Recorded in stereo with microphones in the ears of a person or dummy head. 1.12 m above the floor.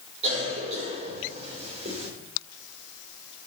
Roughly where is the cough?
Right.